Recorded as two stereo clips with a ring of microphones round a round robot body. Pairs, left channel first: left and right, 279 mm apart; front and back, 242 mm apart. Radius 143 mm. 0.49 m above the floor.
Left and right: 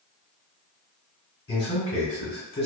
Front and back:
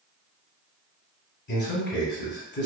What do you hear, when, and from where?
1.5 s a man speaking: 25° left, 1.4 m